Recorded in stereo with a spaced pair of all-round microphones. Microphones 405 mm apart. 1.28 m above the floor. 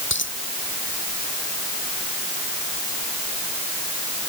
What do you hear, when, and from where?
0.1 s a dropped coin: 30° left (ahead or behind)